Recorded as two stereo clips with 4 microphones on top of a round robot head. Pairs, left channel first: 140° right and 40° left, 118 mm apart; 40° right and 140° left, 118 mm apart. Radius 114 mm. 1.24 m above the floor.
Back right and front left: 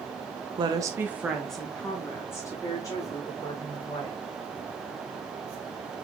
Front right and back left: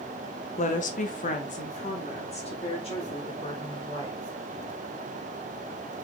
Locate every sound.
0.6 s a woman speaking: 15° right, 1.0 m; by 4.2 s 85° right, 3.5 m